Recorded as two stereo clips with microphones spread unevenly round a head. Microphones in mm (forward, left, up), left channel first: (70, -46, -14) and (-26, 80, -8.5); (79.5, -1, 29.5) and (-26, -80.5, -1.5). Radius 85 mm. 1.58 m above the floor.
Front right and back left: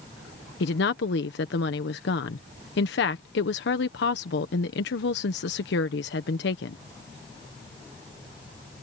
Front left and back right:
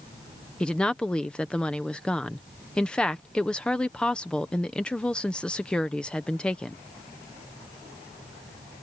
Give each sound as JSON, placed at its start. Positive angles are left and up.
{"t": 0.6, "sound": "a woman speaking", "azimuth_deg": -50}